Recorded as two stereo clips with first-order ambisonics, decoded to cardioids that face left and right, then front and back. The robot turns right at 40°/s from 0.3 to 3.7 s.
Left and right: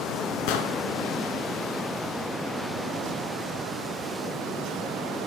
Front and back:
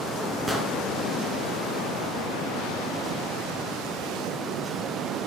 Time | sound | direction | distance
0.5 | an explosion | 95° left | 1.8 m